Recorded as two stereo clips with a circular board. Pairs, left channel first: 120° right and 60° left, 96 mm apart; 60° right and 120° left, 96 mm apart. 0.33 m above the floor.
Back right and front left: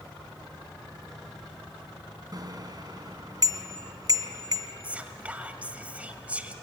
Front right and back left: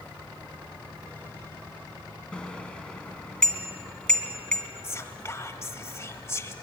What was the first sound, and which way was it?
A bicycle bell, 20° left.